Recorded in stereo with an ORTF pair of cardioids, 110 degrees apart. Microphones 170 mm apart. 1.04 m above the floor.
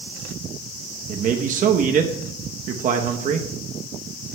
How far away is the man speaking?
About 0.9 m.